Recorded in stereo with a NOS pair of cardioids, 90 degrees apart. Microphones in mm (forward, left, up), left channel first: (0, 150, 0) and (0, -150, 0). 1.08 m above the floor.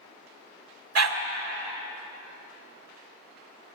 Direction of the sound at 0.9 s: 60° right.